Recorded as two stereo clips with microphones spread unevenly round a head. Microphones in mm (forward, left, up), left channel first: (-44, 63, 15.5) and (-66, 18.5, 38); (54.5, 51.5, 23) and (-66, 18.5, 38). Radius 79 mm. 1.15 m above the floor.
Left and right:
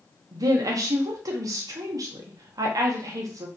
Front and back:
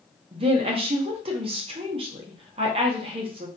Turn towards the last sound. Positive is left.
turn(degrees=-115)